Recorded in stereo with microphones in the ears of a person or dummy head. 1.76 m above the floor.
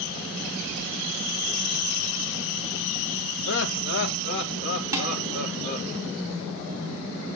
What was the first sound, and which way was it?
Laughter, 65° left (ahead or behind).